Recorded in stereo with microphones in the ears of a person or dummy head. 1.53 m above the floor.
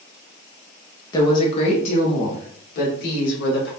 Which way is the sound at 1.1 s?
20° left (ahead or behind).